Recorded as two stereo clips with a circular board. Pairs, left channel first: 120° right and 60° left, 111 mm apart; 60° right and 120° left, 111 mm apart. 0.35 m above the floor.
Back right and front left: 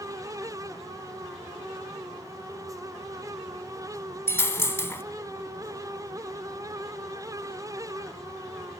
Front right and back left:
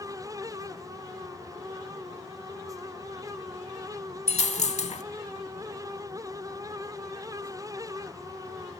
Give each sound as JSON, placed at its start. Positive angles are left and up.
{"t": 4.3, "sound": "a dropped coin", "azimuth_deg": -55, "distance_m": 0.6}